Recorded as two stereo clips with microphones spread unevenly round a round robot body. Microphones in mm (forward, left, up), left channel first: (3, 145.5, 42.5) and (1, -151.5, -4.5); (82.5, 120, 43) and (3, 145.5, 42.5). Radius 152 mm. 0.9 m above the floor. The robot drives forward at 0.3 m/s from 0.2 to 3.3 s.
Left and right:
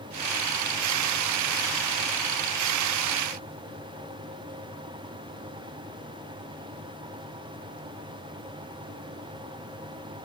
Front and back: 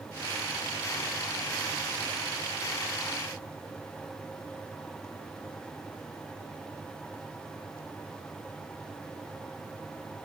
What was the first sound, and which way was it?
Only background noise.